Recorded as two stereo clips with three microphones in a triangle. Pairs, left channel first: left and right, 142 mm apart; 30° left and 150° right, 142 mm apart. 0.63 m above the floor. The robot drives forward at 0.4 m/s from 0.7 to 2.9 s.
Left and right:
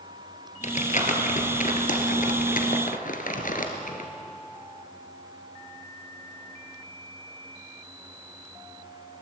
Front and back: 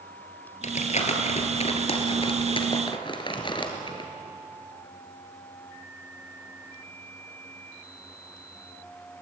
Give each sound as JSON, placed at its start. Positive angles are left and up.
{"t": 0.6, "sound": "crumpling", "azimuth_deg": 60, "distance_m": 2.5}